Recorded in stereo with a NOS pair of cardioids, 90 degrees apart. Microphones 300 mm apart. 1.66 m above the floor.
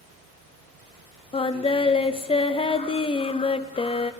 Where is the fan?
65° right, 2.0 m.